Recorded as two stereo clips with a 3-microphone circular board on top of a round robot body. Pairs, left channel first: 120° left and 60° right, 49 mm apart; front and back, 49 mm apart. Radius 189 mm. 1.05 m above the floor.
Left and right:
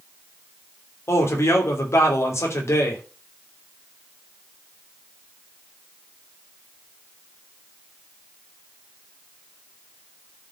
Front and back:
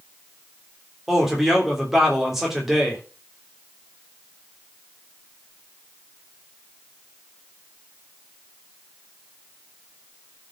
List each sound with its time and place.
1.1 s a man speaking: 95° left, 3 m